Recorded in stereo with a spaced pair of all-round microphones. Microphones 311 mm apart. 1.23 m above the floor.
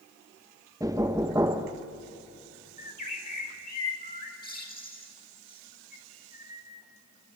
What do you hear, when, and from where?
0.8 s knocking: 10° right (ahead or behind), 1.0 m
2.8 s a bird: 30° left (ahead or behind), 4 m